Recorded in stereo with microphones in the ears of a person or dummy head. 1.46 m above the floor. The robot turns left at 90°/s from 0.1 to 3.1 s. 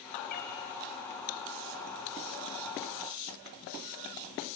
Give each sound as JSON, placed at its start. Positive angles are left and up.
{"t": 0.3, "sound": "a cat meowing", "side_deg": 50, "distance_m": 3.5}